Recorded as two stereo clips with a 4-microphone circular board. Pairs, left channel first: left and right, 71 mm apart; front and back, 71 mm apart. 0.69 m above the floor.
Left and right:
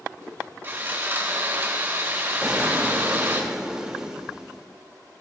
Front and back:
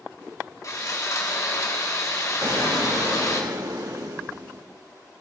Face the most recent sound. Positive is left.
turn(degrees=-170)